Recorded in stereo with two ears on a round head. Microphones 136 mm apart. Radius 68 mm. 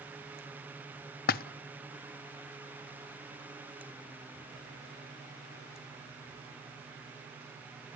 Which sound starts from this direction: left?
A splash, at 1.3 s.